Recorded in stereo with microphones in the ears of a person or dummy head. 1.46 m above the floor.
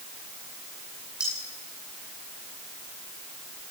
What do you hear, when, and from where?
1.2 s cutlery clinking: 5° right (ahead or behind), 10 m